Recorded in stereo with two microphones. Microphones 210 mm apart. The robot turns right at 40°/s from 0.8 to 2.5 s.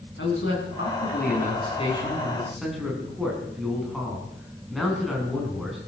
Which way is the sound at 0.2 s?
115° left.